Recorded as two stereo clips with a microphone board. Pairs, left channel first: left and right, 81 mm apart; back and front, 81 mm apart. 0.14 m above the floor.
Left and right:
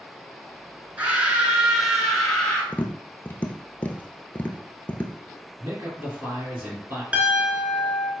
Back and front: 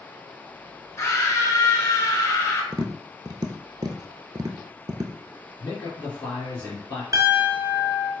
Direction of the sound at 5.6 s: 125° right.